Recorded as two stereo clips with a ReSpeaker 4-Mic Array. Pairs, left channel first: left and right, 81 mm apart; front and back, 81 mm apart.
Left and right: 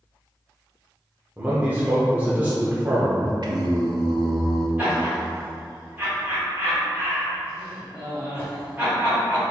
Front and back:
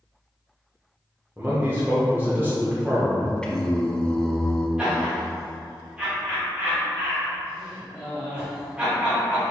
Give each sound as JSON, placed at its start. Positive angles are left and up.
{"t": 1.4, "sound": "a man speaking", "azimuth_deg": -140, "distance_m": 0.8}
{"t": 3.4, "sound": "singing", "azimuth_deg": -80, "distance_m": 0.5}
{"t": 4.8, "sound": "laughter", "azimuth_deg": -115, "distance_m": 1.3}